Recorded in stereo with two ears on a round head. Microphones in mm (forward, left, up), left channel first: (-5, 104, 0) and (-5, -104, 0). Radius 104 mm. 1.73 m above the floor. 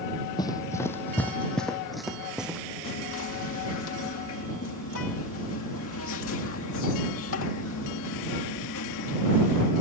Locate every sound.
0.4 s running footsteps: 20° left (ahead or behind); by 2.6 s 5° right (ahead or behind)
2.8 s whispering: 60° left (ahead or behind)